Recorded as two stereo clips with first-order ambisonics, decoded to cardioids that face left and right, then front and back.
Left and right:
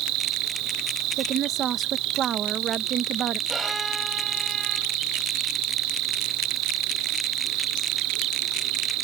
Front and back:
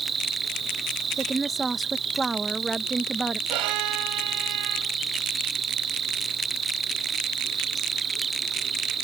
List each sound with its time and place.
0.0 s an insect: 115° right
1.2 s a woman speaking: 110° right
3.5 s a violin: 170° right